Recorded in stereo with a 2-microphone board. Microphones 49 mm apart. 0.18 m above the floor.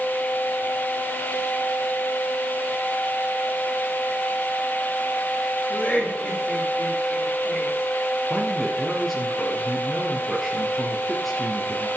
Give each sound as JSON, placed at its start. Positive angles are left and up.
{"t": 5.7, "sound": "laughter", "side_deg": 30, "distance_m": 9.0}
{"t": 8.3, "sound": "a man speaking", "side_deg": 0, "distance_m": 3.0}